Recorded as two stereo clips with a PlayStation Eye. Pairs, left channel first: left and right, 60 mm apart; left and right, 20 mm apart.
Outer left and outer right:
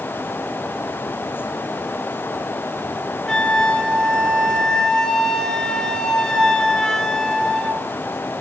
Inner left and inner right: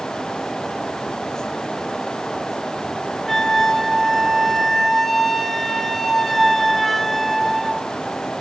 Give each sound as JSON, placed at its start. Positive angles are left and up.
{"t": 3.3, "sound": "a flute", "side_deg": 10, "distance_m": 1.6}